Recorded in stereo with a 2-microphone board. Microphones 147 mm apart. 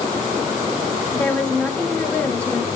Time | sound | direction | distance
1.1 | a woman speaking | 10° left (ahead or behind) | 1.1 m